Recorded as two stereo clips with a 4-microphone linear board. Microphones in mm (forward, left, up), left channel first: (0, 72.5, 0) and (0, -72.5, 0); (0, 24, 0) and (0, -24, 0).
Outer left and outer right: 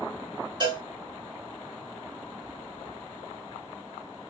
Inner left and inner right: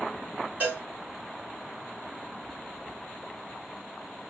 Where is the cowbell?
30° right (ahead or behind), 1.7 m.